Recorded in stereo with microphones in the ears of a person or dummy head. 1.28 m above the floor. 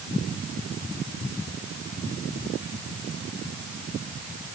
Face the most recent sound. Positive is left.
No sound to turn to.